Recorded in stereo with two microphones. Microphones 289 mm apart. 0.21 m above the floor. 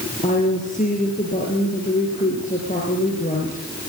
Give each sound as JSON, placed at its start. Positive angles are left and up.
{"t": 0.2, "sound": "a woman speaking", "side_deg": 25, "distance_m": 5.5}